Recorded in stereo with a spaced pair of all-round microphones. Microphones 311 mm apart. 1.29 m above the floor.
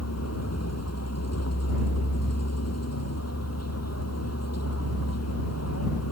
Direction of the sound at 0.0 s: 55° left (ahead or behind).